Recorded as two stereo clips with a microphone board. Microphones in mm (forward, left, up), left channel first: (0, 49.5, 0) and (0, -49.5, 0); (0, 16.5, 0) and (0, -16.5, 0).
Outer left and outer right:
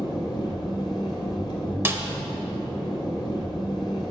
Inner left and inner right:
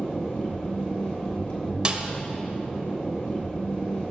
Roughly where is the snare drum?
Right.